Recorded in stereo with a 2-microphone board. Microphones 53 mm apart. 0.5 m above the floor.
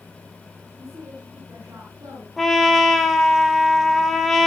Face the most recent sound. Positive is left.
turn(degrees=0)  # may be behind; listen again after turning